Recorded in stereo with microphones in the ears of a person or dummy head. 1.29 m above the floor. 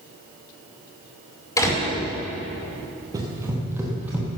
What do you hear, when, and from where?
1.6 s a door slam: 25° left (ahead or behind), 3.5 m
3.1 s running footsteps: 10° right (ahead or behind), 2 m; by 4.3 s centre (ahead or behind), 3 m